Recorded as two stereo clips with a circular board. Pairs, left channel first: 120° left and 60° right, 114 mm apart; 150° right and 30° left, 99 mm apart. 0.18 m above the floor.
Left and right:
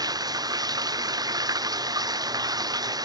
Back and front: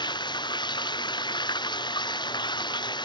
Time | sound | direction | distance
0.0 | running water | 115° right | ?